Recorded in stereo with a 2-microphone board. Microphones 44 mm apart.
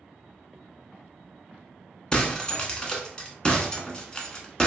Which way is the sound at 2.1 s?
20° left (ahead or behind).